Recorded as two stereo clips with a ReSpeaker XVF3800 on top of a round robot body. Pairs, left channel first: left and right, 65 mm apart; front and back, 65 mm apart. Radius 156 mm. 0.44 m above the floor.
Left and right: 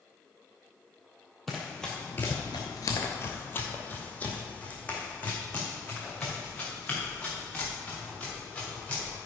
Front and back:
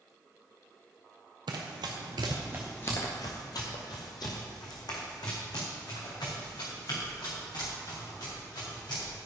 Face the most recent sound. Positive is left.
turn(degrees=15)